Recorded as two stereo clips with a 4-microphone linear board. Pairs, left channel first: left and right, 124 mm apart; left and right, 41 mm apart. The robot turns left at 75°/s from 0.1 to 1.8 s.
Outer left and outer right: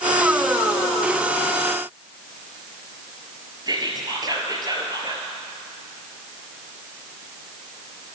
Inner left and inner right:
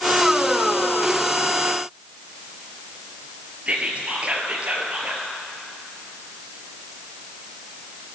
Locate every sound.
3.7 s whispering: 35° right (ahead or behind), 2 m